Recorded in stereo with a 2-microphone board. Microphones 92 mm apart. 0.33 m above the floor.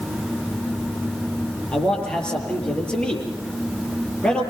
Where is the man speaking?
10° left (ahead or behind), 8 m.